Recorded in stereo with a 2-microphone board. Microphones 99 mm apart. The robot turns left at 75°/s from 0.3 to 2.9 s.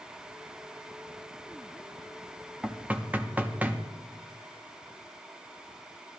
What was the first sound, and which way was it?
Knocking, 10° right (ahead or behind).